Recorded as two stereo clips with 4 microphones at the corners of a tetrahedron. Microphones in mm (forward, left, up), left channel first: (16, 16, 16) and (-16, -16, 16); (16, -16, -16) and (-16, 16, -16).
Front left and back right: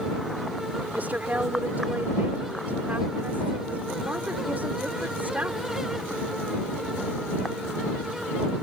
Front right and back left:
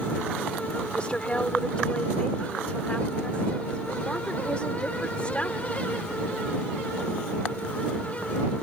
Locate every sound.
0.9 s a woman speaking: 100° right